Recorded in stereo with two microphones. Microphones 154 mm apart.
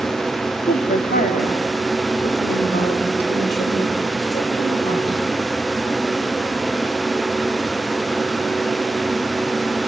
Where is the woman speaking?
70° left (ahead or behind), 1.8 m; by 5.2 s 60° left (ahead or behind), 4.5 m.